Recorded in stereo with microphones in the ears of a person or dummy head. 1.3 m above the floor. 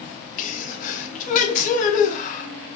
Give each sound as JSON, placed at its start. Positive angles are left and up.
{"t": 0.4, "sound": "a sneeze", "side_deg": 45, "distance_m": 0.7}